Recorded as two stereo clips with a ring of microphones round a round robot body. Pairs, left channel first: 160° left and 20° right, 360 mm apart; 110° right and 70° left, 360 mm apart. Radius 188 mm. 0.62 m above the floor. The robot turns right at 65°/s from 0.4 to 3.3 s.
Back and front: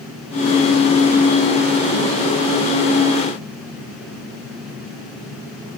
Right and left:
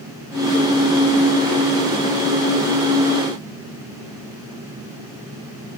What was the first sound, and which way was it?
Only background noise.